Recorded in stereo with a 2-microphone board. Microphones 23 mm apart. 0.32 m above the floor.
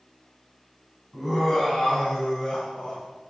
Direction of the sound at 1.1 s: 5° right (ahead or behind).